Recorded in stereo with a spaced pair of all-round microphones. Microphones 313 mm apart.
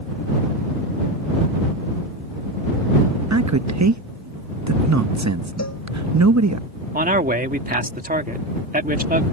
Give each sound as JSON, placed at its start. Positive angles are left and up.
{"t": 3.3, "sound": "a man speaking", "side_deg": -60}
{"t": 5.6, "sound": "a cowbell", "side_deg": 55}
{"t": 6.9, "sound": "a man speaking", "side_deg": -25}